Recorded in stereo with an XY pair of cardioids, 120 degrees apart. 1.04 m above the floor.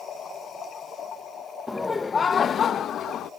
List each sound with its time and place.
1.7 s laughter: 10° left, 0.7 m; by 3.3 s 60° left, 1.1 m